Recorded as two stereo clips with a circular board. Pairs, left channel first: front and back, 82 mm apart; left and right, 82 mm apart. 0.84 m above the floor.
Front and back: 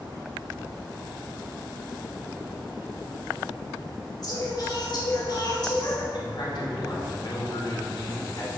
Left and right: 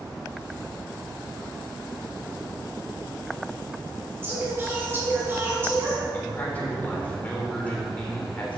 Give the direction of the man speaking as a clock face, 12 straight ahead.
11 o'clock.